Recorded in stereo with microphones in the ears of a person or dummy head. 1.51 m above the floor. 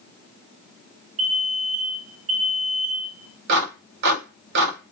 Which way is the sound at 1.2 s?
60° right (ahead or behind).